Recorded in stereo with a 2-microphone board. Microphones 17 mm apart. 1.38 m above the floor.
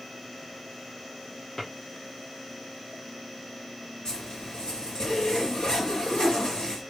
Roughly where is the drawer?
Left.